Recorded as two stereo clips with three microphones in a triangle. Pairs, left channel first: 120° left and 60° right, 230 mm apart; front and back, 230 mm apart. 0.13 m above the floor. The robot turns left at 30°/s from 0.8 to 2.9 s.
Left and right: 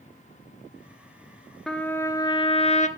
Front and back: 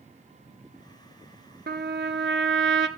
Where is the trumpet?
155° right, 1.1 m; by 2.9 s 170° left, 1.1 m.